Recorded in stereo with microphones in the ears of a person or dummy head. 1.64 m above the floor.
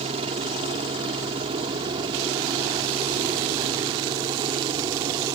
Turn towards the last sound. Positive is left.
turn(degrees=-20)  # may be behind; listen again after turning